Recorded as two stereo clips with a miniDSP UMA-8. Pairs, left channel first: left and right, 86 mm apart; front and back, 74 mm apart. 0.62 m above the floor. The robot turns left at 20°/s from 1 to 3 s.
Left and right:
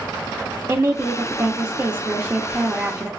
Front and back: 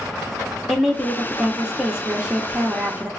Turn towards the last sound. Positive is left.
turn(degrees=-135)